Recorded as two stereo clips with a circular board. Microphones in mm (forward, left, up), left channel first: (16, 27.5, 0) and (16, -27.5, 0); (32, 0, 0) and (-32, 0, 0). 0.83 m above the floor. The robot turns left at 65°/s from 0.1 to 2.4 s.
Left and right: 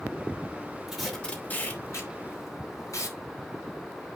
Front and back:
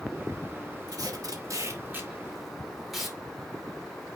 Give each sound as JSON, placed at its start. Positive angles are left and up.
{"t": 0.9, "sound": "tape being pulled", "azimuth_deg": -170, "distance_m": 2.5}